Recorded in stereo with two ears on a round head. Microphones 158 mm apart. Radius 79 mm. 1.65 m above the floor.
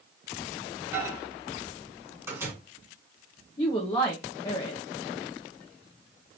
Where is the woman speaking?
20° left (ahead or behind), 1.0 m.